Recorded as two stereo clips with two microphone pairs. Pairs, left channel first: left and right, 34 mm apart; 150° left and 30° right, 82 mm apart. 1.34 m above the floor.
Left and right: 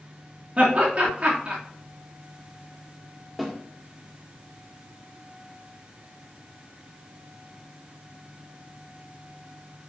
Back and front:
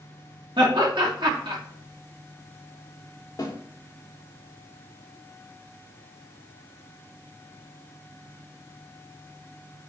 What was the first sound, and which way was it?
Laughter, 40° right.